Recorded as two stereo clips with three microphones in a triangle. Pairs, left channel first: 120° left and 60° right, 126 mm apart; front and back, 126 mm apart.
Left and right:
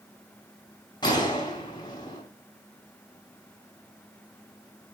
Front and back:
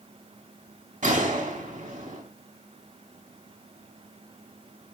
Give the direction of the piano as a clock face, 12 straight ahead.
No piano in this recording.